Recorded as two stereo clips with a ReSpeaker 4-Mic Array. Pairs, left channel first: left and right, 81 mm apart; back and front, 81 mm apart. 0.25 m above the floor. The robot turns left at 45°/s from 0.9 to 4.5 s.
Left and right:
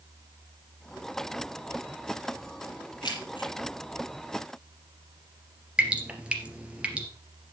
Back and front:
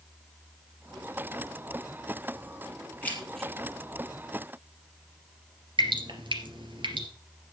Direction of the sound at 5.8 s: 10° right.